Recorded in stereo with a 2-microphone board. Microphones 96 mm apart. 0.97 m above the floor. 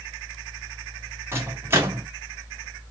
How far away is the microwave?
About 1.6 m.